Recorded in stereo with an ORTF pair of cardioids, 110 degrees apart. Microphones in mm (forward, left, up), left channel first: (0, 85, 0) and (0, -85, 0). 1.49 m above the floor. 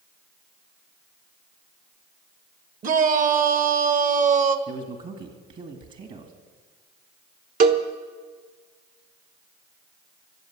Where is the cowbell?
60° right, 1.2 m.